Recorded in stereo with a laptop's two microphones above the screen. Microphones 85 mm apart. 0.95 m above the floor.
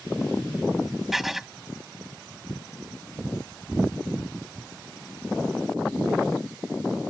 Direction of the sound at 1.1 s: 5° right (ahead or behind).